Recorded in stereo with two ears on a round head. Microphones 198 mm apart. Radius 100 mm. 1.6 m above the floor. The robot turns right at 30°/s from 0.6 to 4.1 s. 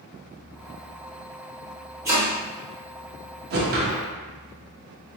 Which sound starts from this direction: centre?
Chopping, at 2.0 s.